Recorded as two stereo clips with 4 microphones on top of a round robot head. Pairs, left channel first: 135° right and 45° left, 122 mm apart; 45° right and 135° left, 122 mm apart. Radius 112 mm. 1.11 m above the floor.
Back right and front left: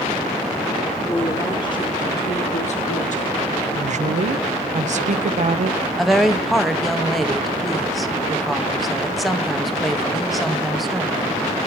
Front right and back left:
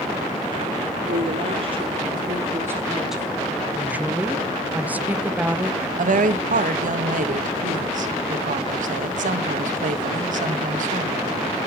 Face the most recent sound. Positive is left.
turn(degrees=135)